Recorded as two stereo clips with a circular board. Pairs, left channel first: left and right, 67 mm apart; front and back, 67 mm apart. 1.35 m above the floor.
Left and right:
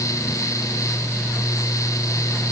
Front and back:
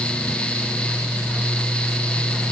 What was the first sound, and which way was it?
Only background noise.